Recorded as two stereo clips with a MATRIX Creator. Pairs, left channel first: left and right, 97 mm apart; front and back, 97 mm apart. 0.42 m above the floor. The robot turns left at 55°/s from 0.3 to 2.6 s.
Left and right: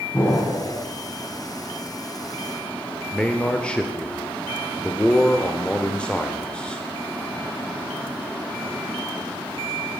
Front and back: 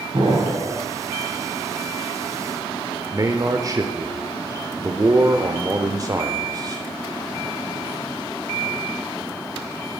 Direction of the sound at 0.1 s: 145° left.